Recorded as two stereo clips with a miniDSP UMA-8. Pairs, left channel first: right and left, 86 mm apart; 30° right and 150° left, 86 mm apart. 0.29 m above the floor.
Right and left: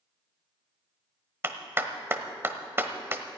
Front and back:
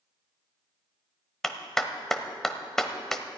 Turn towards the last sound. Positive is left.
turn(degrees=50)